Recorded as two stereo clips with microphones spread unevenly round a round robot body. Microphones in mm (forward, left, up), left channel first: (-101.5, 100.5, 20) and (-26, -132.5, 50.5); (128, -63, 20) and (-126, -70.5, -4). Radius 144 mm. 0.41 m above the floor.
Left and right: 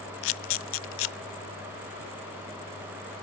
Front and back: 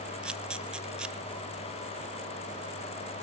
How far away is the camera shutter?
About 0.5 m.